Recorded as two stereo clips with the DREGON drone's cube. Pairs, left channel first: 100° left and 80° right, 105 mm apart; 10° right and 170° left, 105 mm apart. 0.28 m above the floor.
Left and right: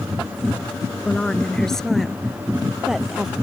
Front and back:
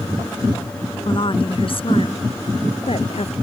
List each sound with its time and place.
1.1 s a woman speaking: 25° left; by 3.4 s 5° left